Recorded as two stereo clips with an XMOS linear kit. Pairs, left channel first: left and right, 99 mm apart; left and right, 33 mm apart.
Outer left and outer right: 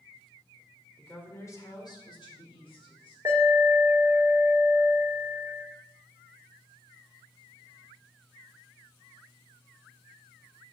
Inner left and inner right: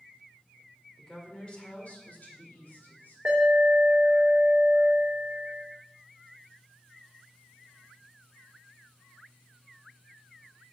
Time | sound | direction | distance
1.0 | a woman speaking | 15° left (ahead or behind) | 2 m
3.2 | an alarm | 30° right (ahead or behind) | 3 m